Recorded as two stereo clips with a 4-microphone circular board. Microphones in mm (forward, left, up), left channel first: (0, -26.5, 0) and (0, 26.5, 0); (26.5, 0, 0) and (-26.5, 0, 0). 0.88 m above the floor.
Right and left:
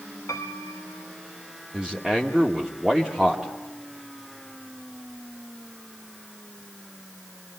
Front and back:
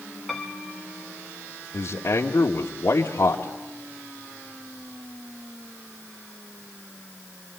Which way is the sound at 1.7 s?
10° left.